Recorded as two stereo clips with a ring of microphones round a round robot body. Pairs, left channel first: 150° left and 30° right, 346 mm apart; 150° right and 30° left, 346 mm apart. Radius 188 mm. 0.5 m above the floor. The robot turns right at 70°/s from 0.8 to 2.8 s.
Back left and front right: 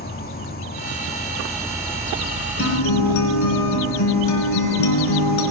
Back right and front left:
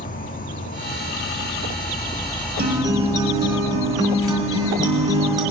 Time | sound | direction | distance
0.0 | an insect | 175° left | 0.9 m
2.6 | a guitar | 95° left | 3 m